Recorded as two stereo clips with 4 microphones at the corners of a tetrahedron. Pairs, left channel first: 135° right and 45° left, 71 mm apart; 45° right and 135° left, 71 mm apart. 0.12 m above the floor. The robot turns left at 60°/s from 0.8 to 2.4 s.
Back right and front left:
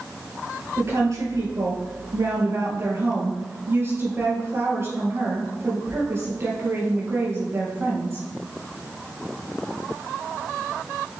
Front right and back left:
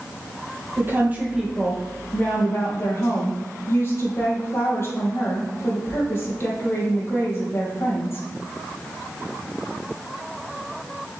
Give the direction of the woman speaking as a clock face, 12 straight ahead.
9 o'clock.